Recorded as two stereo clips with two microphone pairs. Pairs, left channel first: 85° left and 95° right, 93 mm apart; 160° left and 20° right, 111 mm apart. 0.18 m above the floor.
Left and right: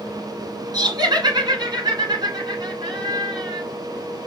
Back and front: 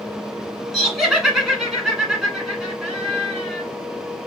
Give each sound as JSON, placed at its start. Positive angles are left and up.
{"t": 0.7, "sound": "laughter", "azimuth_deg": -105, "distance_m": 1.5}